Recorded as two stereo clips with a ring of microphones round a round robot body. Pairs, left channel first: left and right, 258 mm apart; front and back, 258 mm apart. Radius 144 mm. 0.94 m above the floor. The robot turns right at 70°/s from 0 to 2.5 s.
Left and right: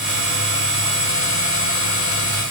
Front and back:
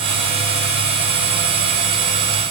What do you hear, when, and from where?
Only background noise.